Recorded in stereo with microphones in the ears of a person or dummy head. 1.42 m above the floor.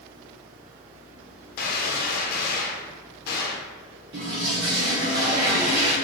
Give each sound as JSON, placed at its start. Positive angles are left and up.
{"t": 1.6, "sound": "a gunshot", "side_deg": 60, "distance_m": 0.8}
{"t": 4.1, "sound": "a toilet flushing", "side_deg": -25, "distance_m": 0.6}